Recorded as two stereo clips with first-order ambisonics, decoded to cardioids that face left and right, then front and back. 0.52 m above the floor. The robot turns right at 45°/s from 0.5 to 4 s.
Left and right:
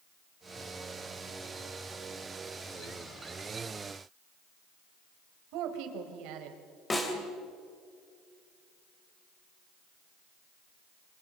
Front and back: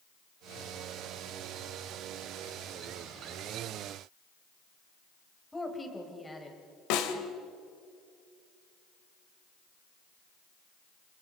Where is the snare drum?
10° left, 2.5 m.